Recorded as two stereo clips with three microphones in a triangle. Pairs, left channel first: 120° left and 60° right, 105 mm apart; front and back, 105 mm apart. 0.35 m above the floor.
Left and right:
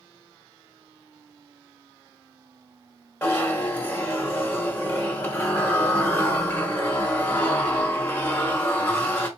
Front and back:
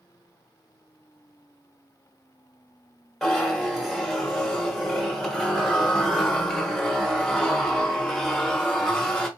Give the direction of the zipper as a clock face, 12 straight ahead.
9 o'clock.